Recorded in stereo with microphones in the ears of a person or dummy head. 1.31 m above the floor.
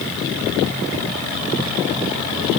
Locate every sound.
Only background noise.